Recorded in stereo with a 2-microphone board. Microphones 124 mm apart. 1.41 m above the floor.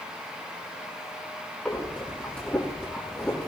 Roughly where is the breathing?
Centre.